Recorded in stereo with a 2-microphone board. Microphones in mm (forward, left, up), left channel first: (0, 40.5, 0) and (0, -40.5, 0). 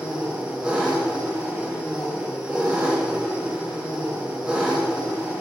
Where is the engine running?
10° right (ahead or behind), 0.8 m.